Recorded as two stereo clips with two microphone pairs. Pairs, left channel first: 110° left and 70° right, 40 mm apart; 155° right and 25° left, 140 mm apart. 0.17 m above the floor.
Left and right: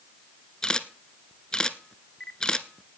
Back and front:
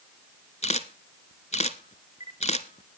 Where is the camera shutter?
175° left, 0.9 m.